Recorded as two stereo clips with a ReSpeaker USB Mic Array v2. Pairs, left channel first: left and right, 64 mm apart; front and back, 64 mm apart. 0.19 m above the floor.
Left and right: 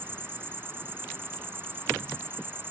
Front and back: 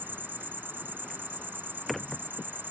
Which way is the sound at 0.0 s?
130° right.